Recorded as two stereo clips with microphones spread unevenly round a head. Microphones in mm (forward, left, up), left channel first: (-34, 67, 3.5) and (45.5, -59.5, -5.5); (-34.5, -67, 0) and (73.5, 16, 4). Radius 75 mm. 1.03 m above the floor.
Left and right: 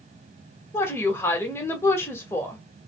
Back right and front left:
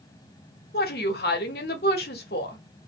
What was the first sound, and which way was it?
A woman speaking, 160° right.